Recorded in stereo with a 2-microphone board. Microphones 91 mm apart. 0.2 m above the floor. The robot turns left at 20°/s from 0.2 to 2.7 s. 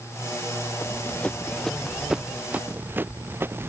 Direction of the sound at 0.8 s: 25° left (ahead or behind).